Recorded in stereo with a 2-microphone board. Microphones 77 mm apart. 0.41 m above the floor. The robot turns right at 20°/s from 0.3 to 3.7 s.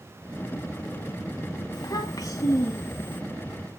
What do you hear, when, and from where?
1.7 s a child speaking: 55° left (ahead or behind), 2 m; by 3.2 s 30° left (ahead or behind), 2 m